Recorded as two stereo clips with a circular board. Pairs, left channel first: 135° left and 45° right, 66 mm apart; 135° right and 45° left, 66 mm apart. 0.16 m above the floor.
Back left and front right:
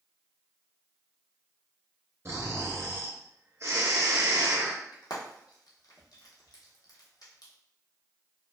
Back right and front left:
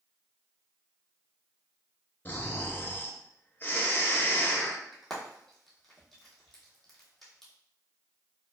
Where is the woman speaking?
No woman speaking in this recording.